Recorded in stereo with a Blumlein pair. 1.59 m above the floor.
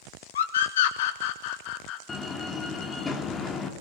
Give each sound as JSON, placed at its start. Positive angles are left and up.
{"t": 0.3, "sound": "a scream", "azimuth_deg": 60, "distance_m": 3.0}
{"t": 2.1, "sound": "a door slam", "azimuth_deg": 20, "distance_m": 3.0}